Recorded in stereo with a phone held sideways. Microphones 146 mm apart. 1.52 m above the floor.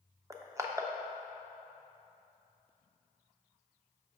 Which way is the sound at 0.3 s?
20° right (ahead or behind).